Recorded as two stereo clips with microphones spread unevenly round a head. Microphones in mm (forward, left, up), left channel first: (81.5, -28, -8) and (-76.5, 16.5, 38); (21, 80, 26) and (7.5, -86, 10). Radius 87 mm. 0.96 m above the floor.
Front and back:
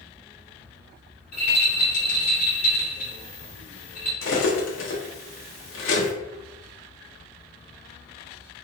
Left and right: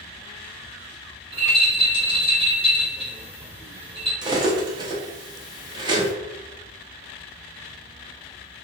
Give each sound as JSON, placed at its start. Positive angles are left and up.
{"t": 1.3, "sound": "a rattle", "azimuth_deg": -45, "distance_m": 1.9}
{"t": 4.2, "sound": "cutlery clinking", "azimuth_deg": -25, "distance_m": 0.8}